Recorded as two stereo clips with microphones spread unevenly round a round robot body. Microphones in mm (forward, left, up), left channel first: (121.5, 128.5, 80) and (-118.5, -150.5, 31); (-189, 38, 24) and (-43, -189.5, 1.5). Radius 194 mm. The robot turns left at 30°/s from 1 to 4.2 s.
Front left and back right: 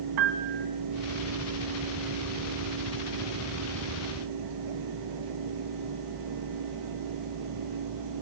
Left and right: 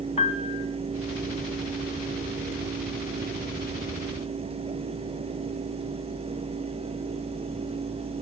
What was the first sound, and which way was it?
A piano, 165° right.